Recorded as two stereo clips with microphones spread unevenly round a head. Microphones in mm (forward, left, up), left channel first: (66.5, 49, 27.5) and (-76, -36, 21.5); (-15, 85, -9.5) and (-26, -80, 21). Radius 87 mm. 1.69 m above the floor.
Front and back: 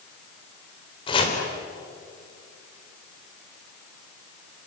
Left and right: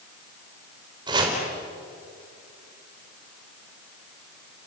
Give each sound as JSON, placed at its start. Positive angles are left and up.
{"t": 1.1, "sound": "chopping", "azimuth_deg": -30, "distance_m": 3.5}